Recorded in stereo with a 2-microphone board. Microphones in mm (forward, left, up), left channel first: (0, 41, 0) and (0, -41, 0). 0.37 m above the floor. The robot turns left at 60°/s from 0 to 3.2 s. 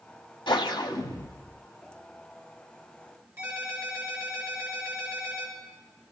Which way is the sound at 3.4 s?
30° right (ahead or behind).